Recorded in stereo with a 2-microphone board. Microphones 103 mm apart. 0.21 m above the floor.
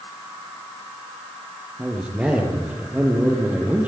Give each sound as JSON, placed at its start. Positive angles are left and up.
{"t": 1.8, "sound": "a man speaking", "side_deg": -10, "distance_m": 5.5}